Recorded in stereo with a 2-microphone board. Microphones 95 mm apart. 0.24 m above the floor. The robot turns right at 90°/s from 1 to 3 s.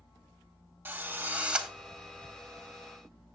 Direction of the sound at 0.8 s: 20° right (ahead or behind).